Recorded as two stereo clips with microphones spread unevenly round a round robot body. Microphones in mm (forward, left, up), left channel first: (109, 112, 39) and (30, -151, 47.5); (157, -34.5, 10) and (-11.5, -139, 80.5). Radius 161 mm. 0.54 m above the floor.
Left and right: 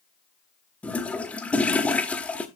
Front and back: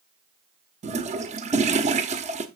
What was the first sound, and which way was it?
A toilet flushing, 150° left.